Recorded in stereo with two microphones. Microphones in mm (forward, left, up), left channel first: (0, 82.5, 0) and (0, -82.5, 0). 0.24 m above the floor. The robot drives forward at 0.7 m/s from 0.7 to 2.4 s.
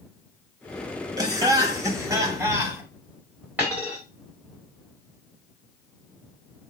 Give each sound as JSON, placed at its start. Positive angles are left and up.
{"t": 1.2, "sound": "laughter", "side_deg": -25, "distance_m": 1.1}
{"t": 3.6, "sound": "a dropped coin", "side_deg": -10, "distance_m": 2.5}